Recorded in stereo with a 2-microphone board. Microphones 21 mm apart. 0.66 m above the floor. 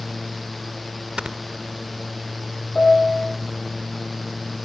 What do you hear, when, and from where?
1.2 s snoring: 65° right (ahead or behind), 2 m
2.8 s a piano: 50° left (ahead or behind), 5.5 m